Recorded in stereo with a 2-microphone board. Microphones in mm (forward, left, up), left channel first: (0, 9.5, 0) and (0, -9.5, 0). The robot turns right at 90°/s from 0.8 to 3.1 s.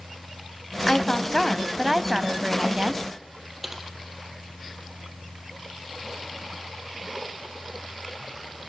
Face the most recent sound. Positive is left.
turn(degrees=-10)  # may be behind; listen again after turning